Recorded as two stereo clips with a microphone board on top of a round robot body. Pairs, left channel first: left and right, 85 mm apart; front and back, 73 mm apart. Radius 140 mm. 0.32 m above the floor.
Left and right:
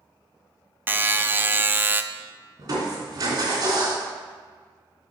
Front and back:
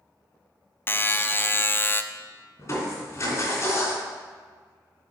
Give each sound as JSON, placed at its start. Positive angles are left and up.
{"t": 0.9, "sound": "a buzzer", "azimuth_deg": -40, "distance_m": 0.6}
{"t": 2.6, "sound": "crushing", "azimuth_deg": -40, "distance_m": 3.0}